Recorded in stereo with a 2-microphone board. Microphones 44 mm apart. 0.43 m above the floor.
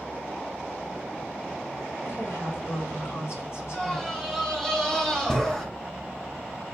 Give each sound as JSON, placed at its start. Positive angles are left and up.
{"t": 2.0, "sound": "a woman speaking", "side_deg": 70, "distance_m": 5.5}
{"t": 3.7, "sound": "a scream", "side_deg": 15, "distance_m": 3.0}